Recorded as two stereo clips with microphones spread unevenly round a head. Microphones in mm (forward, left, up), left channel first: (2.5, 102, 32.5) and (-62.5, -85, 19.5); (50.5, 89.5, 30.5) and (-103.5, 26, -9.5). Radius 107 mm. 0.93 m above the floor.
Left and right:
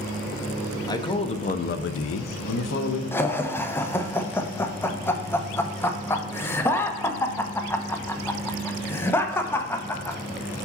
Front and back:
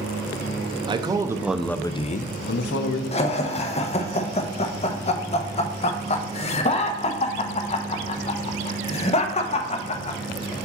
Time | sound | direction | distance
0.9 | a man speaking | 145° left | 0.9 m
3.1 | laughter | straight ahead | 0.7 m